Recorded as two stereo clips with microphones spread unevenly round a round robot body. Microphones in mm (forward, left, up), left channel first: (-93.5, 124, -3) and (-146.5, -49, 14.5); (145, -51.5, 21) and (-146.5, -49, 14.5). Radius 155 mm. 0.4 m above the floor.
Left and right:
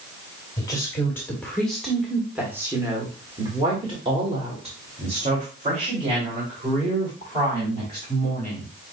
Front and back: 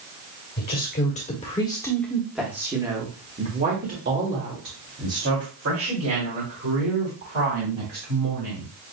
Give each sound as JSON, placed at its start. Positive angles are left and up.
{"t": 0.6, "sound": "a woman speaking", "azimuth_deg": 25, "distance_m": 1.5}